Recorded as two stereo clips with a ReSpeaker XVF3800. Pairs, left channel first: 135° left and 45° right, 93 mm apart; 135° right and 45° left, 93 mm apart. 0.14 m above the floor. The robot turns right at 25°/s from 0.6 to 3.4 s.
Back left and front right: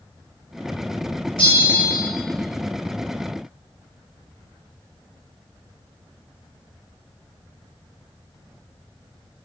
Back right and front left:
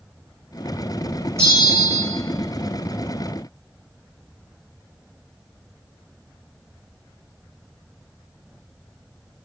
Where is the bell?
105° left, 3 m; by 2.0 s 120° left, 3 m.